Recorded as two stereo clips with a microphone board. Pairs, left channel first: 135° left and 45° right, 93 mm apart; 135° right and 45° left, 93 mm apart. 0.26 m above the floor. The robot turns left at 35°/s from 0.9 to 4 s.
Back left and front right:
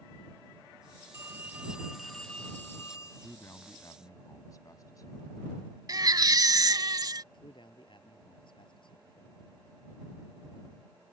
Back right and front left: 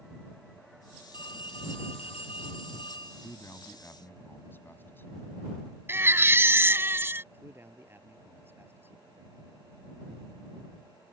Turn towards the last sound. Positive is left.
turn(degrees=110)